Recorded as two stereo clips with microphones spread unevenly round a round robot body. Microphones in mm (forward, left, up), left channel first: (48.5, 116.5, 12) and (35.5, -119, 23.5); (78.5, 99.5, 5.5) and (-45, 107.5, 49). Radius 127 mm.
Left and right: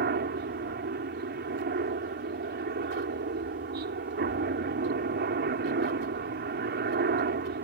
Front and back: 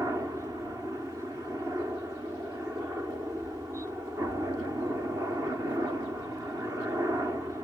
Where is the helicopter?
100° right.